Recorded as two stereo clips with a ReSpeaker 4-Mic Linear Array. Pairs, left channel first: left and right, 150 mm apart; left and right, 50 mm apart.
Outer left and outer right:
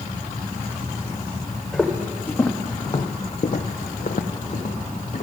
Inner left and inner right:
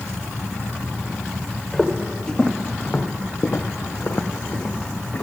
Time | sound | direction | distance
1.7 | footsteps | 5° left (ahead or behind) | 1.0 m